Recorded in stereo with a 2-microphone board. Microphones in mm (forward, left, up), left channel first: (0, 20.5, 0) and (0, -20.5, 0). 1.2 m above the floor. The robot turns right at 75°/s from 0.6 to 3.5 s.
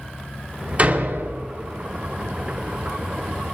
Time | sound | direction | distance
0.8 | a door slam | 145° right | 3 m